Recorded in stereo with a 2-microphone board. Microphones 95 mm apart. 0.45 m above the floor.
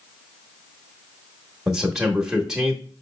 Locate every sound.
1.7 s a man speaking: 5° right (ahead or behind), 0.8 m